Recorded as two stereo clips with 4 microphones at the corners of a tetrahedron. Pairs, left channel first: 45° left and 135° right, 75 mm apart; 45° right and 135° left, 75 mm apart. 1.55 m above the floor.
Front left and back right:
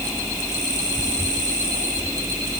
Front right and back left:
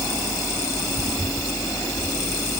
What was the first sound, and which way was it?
Only background noise.